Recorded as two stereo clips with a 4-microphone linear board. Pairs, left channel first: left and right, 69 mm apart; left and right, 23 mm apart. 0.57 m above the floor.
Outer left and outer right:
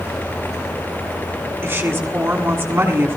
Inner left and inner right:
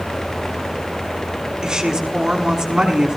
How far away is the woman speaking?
About 4.5 m.